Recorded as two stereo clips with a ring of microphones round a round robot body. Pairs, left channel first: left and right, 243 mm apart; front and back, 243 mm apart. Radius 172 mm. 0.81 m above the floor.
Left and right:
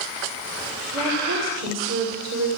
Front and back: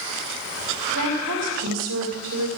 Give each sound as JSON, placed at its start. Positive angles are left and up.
{"t": 0.9, "sound": "a woman speaking", "azimuth_deg": -135, "distance_m": 2.0}